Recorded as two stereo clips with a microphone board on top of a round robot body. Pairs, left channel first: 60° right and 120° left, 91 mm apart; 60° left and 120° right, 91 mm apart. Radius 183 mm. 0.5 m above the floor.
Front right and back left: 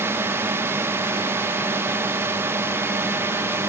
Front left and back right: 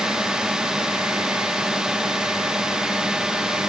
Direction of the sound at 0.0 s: 160° left.